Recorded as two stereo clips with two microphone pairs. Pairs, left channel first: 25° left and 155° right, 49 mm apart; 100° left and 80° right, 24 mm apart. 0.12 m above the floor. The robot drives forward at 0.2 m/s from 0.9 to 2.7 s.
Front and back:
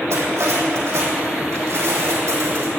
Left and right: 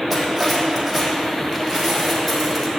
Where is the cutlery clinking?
175° right, 3.5 m.